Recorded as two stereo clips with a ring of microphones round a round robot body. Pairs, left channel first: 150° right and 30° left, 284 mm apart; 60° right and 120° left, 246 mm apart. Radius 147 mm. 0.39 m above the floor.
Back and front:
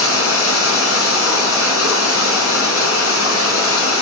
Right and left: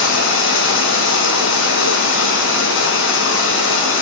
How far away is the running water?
About 4 m.